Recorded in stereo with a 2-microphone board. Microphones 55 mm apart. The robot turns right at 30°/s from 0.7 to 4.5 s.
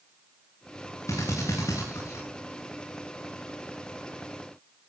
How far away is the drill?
About 9.5 m.